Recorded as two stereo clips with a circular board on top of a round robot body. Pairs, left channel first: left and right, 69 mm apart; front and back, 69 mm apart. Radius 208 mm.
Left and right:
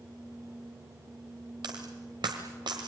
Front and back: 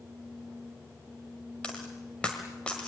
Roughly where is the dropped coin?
Right.